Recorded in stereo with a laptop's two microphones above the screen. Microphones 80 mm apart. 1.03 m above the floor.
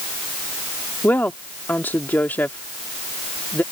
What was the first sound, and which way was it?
A woman speaking, 25° left (ahead or behind).